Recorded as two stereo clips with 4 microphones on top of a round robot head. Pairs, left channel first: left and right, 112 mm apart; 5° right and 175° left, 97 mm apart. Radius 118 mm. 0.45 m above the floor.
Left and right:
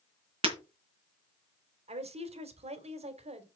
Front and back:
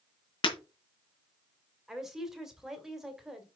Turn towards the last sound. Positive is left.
turn(degrees=-100)